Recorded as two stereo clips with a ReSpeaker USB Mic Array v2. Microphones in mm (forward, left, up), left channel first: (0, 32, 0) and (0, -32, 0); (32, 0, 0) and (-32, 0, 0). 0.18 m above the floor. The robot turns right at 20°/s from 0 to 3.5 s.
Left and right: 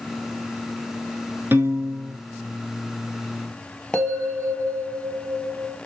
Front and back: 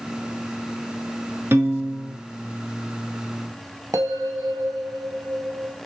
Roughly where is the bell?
Behind.